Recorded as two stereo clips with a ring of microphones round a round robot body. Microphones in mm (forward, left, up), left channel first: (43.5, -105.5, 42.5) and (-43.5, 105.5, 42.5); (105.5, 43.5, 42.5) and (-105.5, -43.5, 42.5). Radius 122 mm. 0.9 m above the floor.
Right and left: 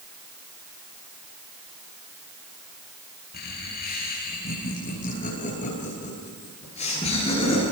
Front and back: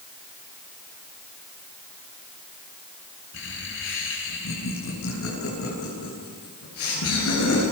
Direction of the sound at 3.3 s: 15° right.